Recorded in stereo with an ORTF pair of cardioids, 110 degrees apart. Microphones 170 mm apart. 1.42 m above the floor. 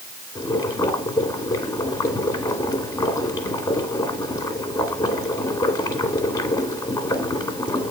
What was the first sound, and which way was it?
Boiling, 20° left.